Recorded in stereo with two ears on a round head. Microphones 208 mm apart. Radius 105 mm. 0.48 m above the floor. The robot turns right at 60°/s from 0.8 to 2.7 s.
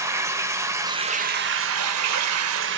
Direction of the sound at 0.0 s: 165° right.